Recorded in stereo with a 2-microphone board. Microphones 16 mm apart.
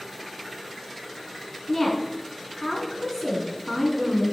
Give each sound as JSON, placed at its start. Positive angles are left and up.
{"t": 1.7, "sound": "a woman speaking", "side_deg": 25, "distance_m": 4.0}